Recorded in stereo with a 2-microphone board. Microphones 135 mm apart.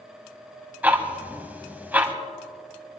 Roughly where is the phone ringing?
I don't hear a phone ringing.